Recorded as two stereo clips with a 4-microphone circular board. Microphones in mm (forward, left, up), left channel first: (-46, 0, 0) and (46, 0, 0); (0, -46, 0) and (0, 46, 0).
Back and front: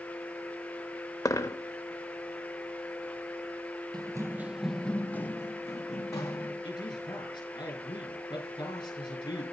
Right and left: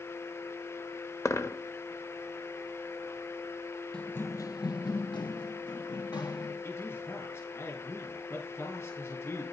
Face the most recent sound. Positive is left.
turn(degrees=-145)